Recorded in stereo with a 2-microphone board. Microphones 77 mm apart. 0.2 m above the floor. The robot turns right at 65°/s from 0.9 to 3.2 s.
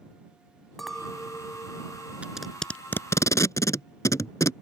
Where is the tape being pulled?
15° right (ahead or behind); by 4.5 s 40° left (ahead or behind).